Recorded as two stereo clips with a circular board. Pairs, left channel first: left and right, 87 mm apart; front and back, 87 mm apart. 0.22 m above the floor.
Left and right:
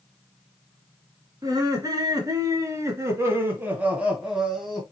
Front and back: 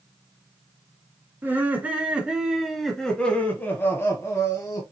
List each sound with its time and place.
1.4 s laughter: 120° right, 1.5 m; by 4.8 s straight ahead, 1.3 m